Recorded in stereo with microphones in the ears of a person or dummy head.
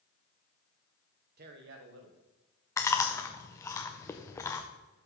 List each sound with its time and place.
1.4 s a man speaking: 50° right (ahead or behind), 0.9 m; by 3.7 s 85° right, 3 m
2.8 s chewing: 15° left (ahead or behind), 0.6 m